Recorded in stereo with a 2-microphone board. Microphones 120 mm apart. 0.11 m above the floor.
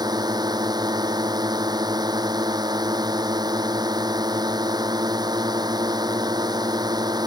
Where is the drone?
35° right (ahead or behind).